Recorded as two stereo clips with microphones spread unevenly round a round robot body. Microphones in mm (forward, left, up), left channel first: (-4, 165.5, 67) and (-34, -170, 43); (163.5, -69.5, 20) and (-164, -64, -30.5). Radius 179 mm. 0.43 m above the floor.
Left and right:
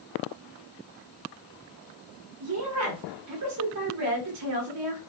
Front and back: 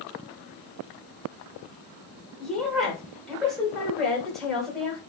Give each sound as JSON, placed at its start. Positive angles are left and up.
{"t": 2.4, "sound": "a woman speaking", "azimuth_deg": -95, "distance_m": 1.3}